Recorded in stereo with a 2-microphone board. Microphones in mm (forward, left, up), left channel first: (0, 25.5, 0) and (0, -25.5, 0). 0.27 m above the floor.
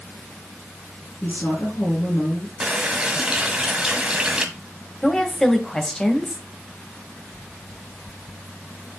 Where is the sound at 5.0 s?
10° left (ahead or behind), 1.4 m.